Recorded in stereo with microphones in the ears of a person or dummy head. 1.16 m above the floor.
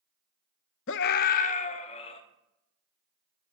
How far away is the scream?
About 0.6 m.